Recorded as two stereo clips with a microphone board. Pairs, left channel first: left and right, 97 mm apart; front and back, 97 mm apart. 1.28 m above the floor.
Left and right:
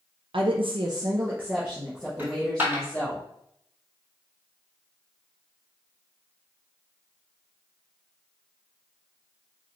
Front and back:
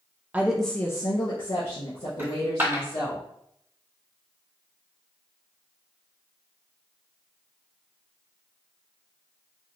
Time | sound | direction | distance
0.3 | a woman speaking | 110° right | 0.6 m
2.2 | a dropped coin | 140° right | 1.4 m